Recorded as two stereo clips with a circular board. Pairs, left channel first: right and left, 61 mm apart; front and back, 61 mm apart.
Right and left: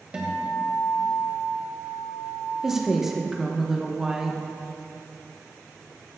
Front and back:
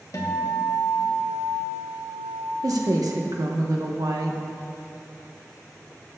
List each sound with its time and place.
0.1 s a guitar: 20° left, 1.6 m
2.6 s a woman speaking: 170° left, 1.0 m